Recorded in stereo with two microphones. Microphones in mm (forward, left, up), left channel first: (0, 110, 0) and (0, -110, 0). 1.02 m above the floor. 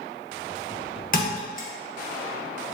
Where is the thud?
40° left (ahead or behind), 0.9 m.